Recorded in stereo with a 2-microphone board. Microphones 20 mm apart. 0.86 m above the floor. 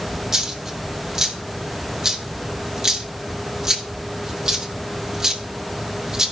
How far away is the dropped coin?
About 1.1 m.